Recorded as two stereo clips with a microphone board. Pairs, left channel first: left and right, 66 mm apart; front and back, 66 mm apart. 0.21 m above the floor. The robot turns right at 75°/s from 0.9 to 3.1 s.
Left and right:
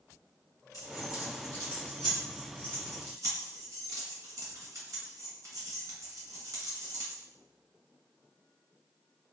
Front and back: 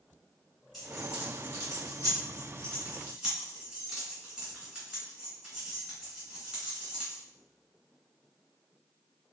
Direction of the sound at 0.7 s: 95° left.